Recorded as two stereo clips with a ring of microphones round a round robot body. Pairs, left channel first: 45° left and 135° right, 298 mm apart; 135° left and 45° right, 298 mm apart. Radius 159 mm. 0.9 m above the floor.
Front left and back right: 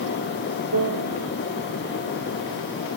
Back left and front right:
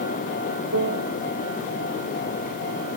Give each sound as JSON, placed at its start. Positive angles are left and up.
{"t": 0.7, "sound": "a piano", "azimuth_deg": -95}